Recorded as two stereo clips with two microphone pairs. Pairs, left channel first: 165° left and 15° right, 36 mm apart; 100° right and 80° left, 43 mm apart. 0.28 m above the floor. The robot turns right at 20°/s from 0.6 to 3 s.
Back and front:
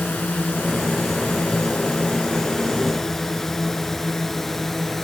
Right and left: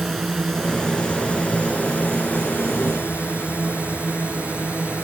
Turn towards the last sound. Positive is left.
turn(degrees=-120)